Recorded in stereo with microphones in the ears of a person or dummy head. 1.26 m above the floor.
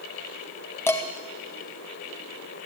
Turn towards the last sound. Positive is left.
turn(degrees=15)  # may be behind; listen again after turning